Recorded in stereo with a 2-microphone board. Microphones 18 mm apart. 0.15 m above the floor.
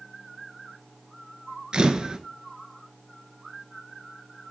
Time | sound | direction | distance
1.7 | a camera shutter | 55° right (ahead or behind) | 0.9 m